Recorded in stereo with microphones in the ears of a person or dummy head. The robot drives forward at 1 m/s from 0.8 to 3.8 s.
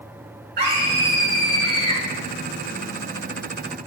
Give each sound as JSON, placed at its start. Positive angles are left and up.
{"t": 0.6, "sound": "a scream", "side_deg": -45, "distance_m": 3.0}